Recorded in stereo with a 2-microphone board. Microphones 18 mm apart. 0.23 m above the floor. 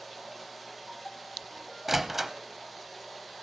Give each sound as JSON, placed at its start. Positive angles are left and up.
{"t": 0.0, "sound": "running water", "side_deg": 5, "distance_m": 5.0}
{"t": 1.9, "sound": "a door slam", "side_deg": -15, "distance_m": 0.8}